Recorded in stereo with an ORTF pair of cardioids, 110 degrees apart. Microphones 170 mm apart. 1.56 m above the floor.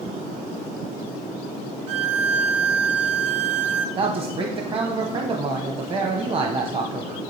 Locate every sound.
1.9 s a violin: 40° right, 0.7 m
4.0 s a man speaking: 35° right, 0.9 m